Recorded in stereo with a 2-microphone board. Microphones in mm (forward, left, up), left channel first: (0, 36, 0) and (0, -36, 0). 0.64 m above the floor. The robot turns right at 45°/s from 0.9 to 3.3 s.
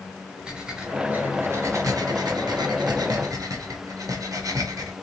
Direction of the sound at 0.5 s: 10° right (ahead or behind).